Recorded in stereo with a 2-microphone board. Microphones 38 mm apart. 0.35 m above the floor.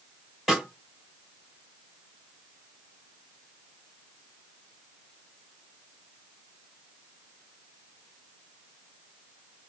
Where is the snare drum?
Centre (ahead or behind), 1.8 m.